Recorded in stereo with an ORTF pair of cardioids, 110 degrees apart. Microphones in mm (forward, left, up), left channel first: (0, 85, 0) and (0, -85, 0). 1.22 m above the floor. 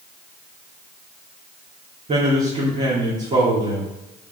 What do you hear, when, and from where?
2.1 s a man speaking: 40° right, 3 m